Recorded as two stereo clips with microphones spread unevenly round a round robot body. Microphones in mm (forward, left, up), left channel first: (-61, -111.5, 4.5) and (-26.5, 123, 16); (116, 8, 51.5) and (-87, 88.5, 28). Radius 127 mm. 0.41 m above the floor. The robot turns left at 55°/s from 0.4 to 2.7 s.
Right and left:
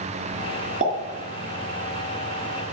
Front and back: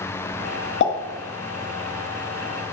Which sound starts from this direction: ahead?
A pop, at 0.8 s.